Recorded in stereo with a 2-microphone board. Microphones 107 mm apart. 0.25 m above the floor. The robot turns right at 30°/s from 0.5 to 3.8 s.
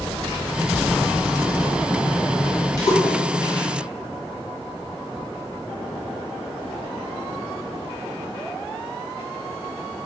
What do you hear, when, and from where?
2.8 s a splash: 40° left (ahead or behind), 1.2 m; by 3.7 s 35° left (ahead or behind), 1.2 m